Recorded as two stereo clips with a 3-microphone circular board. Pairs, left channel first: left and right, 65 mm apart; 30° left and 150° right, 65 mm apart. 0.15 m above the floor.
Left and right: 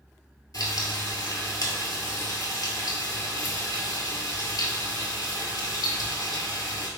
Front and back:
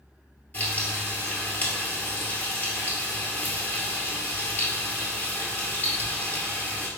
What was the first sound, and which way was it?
Frying, 90° left.